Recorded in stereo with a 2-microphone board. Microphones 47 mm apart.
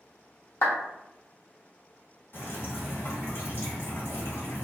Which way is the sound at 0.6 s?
60° left (ahead or behind).